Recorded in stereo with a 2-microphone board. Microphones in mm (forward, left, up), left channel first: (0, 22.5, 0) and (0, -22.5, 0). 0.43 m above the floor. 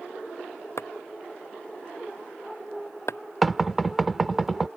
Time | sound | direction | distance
0.8 | chopping | 75° left (ahead or behind) | ?
3.4 | knocking | centre (ahead or behind) | ?